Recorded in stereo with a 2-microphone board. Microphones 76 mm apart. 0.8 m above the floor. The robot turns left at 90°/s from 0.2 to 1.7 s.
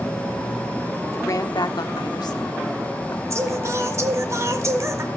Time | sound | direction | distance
1.1 | a woman speaking | 145° left | 1.4 m
3.3 | singing | 45° right (ahead or behind) | 1.6 m